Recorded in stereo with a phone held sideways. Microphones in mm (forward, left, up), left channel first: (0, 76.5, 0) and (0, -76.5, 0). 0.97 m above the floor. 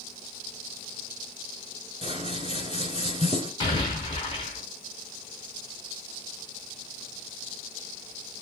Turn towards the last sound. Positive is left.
turn(degrees=35)  # may be behind; listen again after turning